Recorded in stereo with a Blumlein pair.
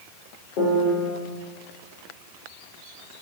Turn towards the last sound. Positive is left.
turn(degrees=45)